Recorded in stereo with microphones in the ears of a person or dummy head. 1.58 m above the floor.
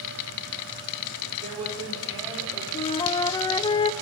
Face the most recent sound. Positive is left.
turn(degrees=25)  # may be behind; listen again after turning